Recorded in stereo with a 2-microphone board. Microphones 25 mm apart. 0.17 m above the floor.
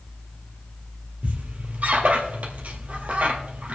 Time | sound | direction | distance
1.2 | a squeak | 65° right (ahead or behind) | 1.9 m